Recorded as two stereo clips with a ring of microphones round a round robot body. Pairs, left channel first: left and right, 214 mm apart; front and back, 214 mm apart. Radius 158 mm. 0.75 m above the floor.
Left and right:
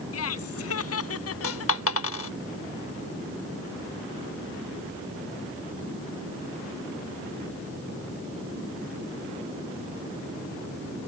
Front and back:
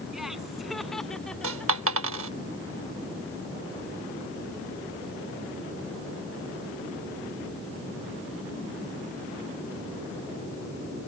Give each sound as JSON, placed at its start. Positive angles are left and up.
{"t": 0.1, "sound": "laughter", "azimuth_deg": 90}
{"t": 1.4, "sound": "a dropped coin", "azimuth_deg": 135}